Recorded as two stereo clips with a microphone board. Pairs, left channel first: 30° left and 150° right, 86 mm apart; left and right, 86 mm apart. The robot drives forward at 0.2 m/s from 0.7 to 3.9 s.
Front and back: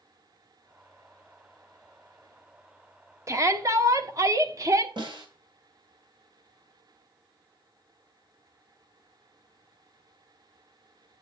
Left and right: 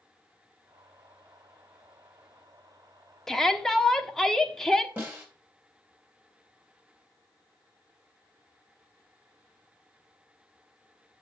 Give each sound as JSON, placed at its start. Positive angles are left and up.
{"t": 3.3, "sound": "a shout", "azimuth_deg": 175, "distance_m": 1.0}
{"t": 5.0, "sound": "a snare drum", "azimuth_deg": -160, "distance_m": 3.5}